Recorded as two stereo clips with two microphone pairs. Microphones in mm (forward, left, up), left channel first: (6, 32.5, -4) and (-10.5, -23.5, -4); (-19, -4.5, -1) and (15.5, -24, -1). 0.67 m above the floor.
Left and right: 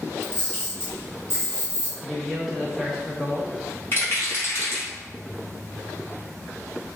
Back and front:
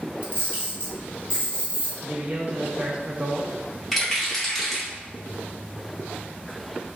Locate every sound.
0.2 s a camera shutter: 125° left, 1.8 m
2.0 s a man speaking: 20° right, 0.7 m
3.9 s a rattle: 75° left, 1.3 m